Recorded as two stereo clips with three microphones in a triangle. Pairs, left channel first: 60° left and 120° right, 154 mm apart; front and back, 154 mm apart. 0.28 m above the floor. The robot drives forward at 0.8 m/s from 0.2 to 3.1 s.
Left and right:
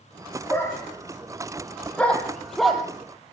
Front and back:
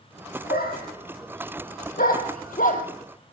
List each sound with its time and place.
0.5 s a dog barking: 15° right, 3.5 m; by 2.8 s 30° right, 1.8 m